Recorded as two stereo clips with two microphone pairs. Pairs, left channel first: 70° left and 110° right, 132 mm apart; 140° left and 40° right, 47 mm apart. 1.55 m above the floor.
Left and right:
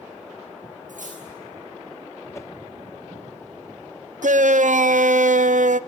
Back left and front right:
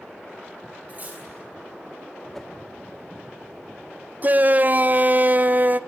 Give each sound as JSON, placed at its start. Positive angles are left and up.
{"t": 0.9, "sound": "cutlery clinking", "azimuth_deg": -95, "distance_m": 8.5}
{"t": 2.3, "sound": "a whoosh", "azimuth_deg": 70, "distance_m": 0.7}
{"t": 4.2, "sound": "a shout", "azimuth_deg": -90, "distance_m": 0.7}